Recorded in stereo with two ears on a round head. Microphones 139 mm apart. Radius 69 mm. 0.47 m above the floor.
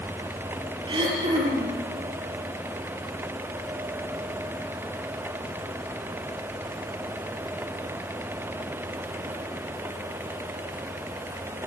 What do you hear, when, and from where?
0.9 s throat clearing: 30° right (ahead or behind), 5.5 m